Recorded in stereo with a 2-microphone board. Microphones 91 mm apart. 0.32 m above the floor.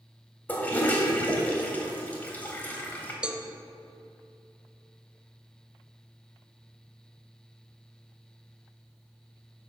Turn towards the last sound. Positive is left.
turn(degrees=-10)  # may be behind; listen again after turning